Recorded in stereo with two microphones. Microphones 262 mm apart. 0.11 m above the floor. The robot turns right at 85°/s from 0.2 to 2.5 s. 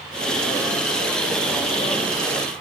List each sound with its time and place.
Only background noise.